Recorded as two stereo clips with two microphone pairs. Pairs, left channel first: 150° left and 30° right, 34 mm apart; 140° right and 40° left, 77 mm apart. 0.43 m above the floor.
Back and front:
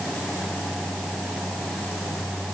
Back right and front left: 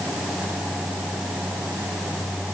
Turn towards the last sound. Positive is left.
No sound to turn to.